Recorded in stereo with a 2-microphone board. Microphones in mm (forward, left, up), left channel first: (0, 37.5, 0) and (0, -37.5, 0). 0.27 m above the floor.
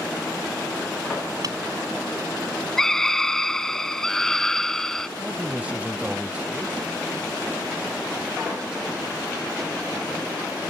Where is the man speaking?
15° right (ahead or behind).